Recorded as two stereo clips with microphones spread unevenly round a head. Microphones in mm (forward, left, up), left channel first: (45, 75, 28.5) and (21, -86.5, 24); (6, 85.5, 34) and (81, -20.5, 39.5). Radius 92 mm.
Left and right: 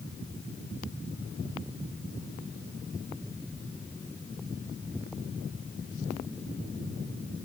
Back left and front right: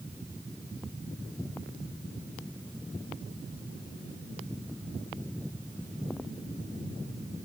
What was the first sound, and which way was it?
Only background noise.